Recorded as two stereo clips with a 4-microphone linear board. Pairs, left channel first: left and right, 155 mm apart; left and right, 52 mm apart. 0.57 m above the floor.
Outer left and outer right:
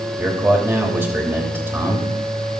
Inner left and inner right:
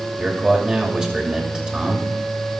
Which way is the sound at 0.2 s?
15° right (ahead or behind).